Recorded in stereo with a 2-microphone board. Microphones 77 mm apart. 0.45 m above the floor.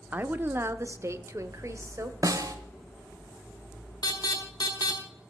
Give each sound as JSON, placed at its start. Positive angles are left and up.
{"t": 0.1, "sound": "a woman speaking", "side_deg": -20, "distance_m": 0.7}
{"t": 2.2, "sound": "a snare drum", "side_deg": -45, "distance_m": 1.3}
{"t": 4.0, "sound": "an alarm", "side_deg": 55, "distance_m": 2.5}